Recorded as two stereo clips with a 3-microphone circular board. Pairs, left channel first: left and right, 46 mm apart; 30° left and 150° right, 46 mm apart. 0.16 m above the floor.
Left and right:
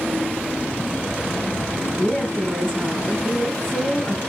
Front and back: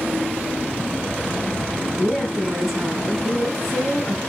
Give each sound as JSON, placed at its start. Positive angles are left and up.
{"t": 2.0, "sound": "a woman speaking", "azimuth_deg": 135, "distance_m": 1.1}